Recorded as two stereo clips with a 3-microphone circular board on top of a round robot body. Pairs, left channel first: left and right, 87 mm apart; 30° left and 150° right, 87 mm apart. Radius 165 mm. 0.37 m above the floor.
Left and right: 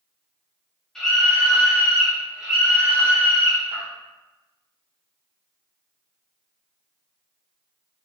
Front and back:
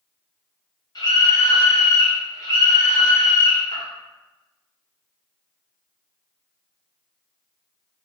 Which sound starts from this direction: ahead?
A scream, at 0.9 s.